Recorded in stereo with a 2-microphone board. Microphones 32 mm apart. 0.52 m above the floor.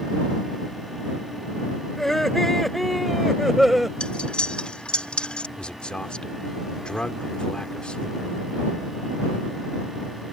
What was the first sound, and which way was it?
Laughter, 10° left (ahead or behind).